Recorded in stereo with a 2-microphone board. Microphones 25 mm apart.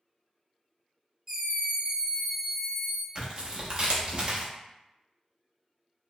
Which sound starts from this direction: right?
Tearing paper, at 3.1 s.